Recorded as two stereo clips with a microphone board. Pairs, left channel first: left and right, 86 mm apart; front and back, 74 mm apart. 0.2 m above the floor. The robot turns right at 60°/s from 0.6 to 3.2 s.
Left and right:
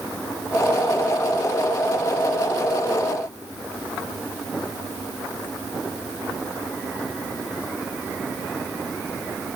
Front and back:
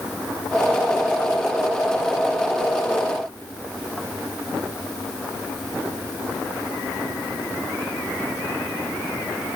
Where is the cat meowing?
I don't hear a cat meowing.